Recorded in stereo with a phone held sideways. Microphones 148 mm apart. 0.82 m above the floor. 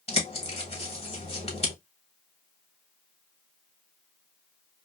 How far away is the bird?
About 1.1 m.